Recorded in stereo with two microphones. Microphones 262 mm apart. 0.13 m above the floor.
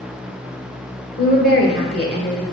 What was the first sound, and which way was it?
A woman speaking, 35° left (ahead or behind).